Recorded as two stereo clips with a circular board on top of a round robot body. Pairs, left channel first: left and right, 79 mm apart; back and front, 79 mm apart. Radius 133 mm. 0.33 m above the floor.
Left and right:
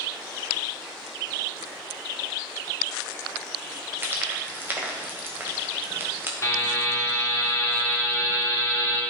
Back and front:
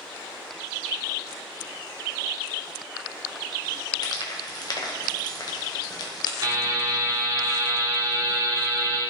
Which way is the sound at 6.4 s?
35° left.